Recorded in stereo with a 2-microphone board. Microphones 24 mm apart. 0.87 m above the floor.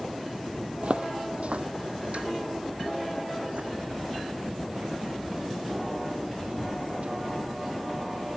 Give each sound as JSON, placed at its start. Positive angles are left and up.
{"t": 0.8, "sound": "footsteps", "side_deg": -60}